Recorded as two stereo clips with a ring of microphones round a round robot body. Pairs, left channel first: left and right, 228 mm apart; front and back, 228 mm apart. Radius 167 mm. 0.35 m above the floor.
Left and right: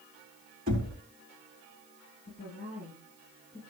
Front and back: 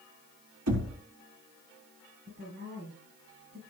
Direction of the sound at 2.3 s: 145° left.